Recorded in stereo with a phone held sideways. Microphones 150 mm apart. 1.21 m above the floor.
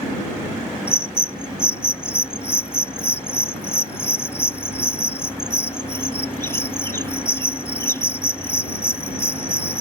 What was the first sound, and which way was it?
A bird, 15° left (ahead or behind).